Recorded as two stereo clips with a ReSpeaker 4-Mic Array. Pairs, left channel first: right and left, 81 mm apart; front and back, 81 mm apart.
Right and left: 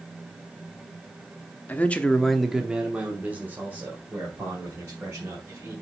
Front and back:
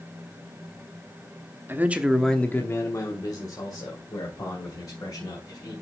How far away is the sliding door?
I don't hear a sliding door.